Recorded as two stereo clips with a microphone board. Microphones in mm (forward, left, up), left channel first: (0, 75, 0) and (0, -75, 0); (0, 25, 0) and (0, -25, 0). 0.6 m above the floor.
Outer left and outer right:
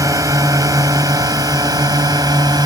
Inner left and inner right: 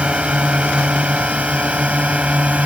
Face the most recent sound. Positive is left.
turn(degrees=-25)  # may be behind; listen again after turning